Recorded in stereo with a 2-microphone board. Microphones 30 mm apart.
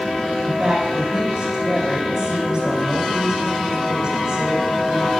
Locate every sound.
0.4 s a woman speaking: 25° right (ahead or behind), 4.5 m